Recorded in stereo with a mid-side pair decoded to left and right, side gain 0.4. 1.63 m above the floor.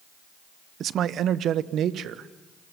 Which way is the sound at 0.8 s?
65° right.